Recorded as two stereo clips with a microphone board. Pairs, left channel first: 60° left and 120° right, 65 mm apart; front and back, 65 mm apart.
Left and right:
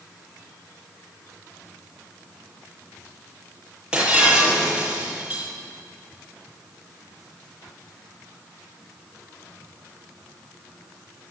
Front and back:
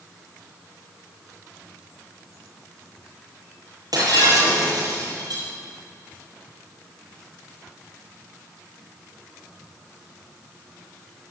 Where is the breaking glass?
165° left, 9.5 m.